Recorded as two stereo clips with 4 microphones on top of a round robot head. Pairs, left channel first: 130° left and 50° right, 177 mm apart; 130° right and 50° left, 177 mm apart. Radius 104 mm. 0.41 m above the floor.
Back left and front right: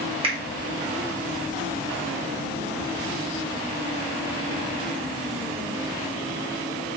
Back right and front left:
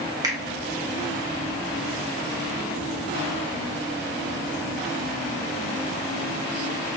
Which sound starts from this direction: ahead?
A finger snap, at 0.2 s.